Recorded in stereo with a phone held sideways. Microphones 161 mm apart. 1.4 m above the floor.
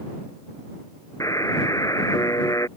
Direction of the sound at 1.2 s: 20° left (ahead or behind).